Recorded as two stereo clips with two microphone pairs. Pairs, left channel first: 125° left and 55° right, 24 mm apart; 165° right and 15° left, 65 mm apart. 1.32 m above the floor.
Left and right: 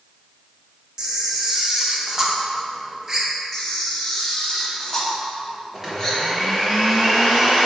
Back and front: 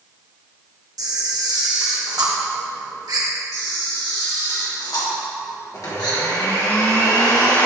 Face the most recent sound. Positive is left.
turn(degrees=-135)